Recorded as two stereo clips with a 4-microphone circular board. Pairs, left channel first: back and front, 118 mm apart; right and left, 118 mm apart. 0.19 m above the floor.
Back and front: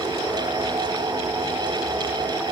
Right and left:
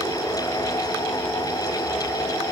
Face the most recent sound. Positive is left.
No sound to turn to.